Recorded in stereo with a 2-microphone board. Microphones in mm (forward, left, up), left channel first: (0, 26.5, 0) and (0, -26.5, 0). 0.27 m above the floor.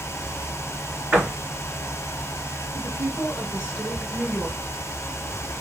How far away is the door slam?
About 3 m.